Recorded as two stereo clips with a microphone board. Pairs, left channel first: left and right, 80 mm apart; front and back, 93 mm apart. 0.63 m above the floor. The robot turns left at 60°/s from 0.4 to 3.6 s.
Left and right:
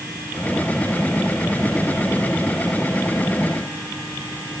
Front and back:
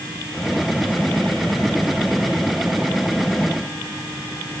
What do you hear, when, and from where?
Only background noise.